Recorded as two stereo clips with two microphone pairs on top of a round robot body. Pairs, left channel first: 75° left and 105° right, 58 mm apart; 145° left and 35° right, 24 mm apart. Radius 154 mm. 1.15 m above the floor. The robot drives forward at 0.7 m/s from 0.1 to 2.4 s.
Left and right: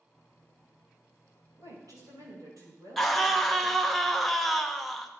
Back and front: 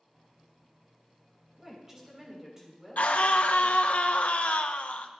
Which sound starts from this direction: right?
A woman speaking, at 1.6 s.